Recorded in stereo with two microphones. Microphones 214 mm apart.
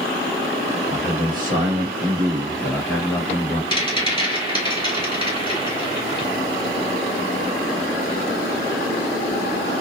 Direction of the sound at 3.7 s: 30° right (ahead or behind).